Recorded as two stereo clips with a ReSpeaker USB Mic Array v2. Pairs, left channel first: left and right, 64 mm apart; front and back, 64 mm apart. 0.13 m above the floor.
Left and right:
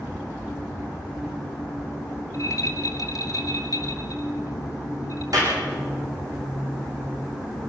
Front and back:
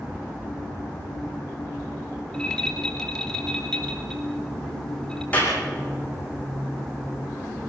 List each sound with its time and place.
2.3 s a rattle: 80° left, 2.5 m
5.3 s a clap: 65° right, 6.5 m